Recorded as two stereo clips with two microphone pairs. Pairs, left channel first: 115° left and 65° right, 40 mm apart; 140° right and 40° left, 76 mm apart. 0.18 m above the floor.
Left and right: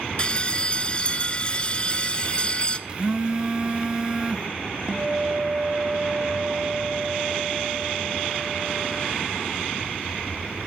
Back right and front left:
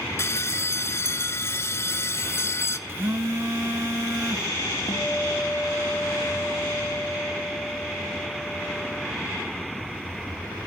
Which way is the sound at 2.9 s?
5° right.